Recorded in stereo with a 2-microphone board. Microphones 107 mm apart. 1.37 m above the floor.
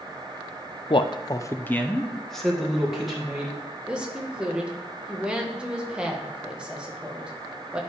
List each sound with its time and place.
0.9 s a man speaking: 50° left (ahead or behind), 0.5 m; by 3.6 s 10° right (ahead or behind), 2 m
3.9 s a woman speaking: 10° right (ahead or behind), 1.3 m